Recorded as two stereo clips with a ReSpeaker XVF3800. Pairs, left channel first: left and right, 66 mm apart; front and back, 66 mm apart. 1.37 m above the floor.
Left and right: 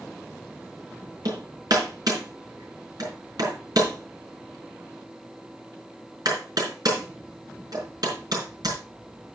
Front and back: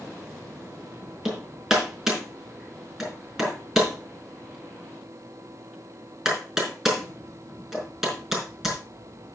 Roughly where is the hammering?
Right.